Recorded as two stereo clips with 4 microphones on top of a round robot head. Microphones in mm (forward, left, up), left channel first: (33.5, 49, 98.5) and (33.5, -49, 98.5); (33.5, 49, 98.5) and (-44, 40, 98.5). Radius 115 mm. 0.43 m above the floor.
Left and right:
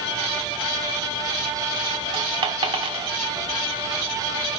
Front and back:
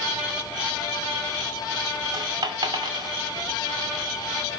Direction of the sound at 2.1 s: 130° right.